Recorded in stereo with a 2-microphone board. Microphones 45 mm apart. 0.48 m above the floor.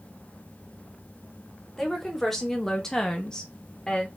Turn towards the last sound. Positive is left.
turn(degrees=15)  # may be behind; listen again after turning